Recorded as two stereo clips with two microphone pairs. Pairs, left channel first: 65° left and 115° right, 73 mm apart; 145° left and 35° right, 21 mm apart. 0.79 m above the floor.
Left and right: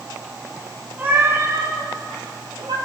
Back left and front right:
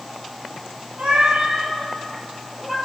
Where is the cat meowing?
55° right, 2 m; by 2.8 s 110° right, 2 m.